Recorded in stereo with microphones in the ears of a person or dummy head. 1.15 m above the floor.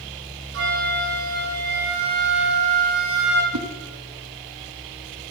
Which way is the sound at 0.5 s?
70° right (ahead or behind).